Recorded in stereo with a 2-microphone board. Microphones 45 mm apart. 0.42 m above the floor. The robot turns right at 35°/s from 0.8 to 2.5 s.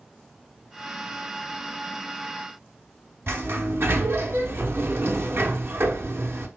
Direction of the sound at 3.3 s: 60° right (ahead or behind).